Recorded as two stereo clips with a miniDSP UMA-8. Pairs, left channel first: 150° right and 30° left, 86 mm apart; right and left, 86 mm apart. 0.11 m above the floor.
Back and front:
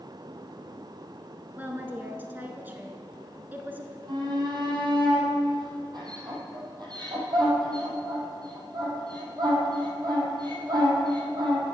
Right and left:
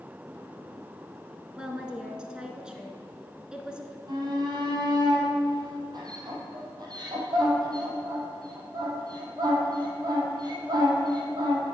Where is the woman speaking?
30° left, 1.1 m.